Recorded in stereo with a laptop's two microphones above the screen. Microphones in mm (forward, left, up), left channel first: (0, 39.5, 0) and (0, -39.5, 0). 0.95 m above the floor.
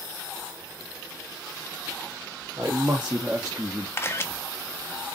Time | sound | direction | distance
2.6 | a man speaking | 35° right (ahead or behind) | 1.8 m
4.0 | a camera shutter | 30° left (ahead or behind) | 1.1 m